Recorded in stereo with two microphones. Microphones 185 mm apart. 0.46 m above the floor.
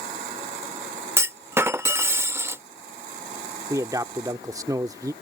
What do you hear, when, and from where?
1.2 s a clunk: 15° right (ahead or behind)
3.7 s a man speaking: 20° right (ahead or behind)